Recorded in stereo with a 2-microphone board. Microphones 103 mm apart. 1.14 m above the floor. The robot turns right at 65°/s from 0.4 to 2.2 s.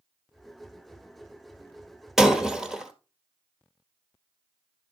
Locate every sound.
2.2 s breaking glass: 5° right (ahead or behind), 1.4 m